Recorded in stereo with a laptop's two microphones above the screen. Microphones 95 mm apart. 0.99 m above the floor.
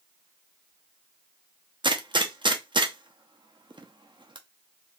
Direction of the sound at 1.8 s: 55° right (ahead or behind).